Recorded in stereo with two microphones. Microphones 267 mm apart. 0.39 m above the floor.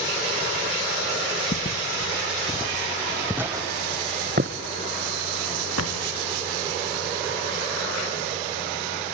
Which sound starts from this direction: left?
Footsteps, at 1.5 s.